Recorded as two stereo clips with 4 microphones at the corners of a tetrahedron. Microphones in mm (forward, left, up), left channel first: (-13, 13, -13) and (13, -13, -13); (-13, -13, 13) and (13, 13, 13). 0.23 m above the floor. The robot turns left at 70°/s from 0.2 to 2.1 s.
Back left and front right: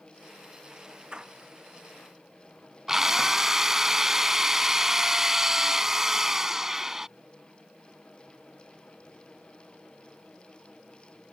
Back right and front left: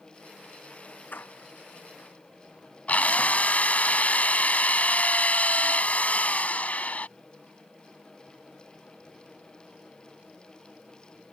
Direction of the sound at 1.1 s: 110° right.